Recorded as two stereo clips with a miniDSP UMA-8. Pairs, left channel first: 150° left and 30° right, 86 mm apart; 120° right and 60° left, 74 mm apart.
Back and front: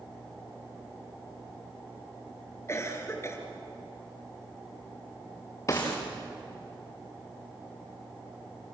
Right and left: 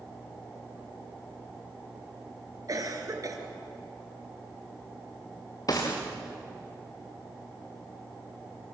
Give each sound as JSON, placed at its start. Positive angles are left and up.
{"t": 2.7, "sound": "a cough", "azimuth_deg": 95, "distance_m": 4.0}
{"t": 5.7, "sound": "a gunshot", "azimuth_deg": -155, "distance_m": 4.5}